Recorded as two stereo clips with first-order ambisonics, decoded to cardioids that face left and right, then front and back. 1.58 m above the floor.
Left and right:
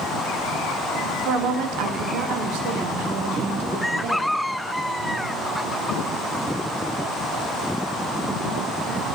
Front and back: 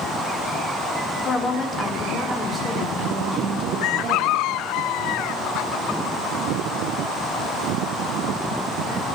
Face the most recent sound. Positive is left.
turn(degrees=-115)